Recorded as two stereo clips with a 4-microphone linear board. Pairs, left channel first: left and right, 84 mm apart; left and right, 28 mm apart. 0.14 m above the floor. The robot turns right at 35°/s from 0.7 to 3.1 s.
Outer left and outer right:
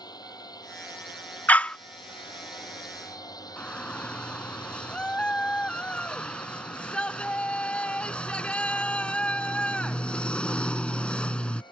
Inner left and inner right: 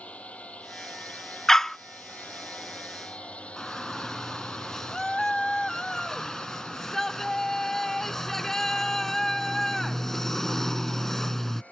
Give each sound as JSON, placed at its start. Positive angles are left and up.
{"t": 0.0, "sound": "a drone", "side_deg": 55}
{"t": 1.5, "sound": "a dog barking", "side_deg": 20}
{"t": 3.6, "sound": "a shout", "side_deg": 15}